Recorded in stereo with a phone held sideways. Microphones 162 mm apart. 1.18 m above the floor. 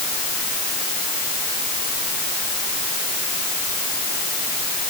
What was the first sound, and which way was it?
Only background noise.